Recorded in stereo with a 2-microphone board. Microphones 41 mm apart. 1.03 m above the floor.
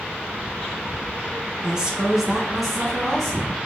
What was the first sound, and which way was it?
A woman speaking, 20° right (ahead or behind).